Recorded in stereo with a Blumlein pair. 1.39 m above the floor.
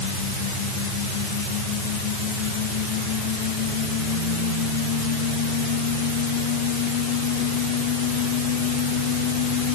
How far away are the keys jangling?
No keys jangling in this recording.